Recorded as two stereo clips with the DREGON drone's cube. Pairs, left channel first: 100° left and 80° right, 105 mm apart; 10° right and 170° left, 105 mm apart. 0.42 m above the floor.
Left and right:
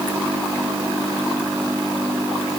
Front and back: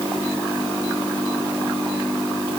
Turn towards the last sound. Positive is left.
No sound to turn to.